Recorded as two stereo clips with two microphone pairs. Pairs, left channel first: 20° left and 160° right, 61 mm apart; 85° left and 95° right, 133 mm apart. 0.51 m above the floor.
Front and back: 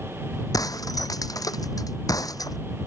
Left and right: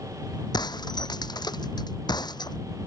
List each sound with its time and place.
0.5 s breaking glass: 30° left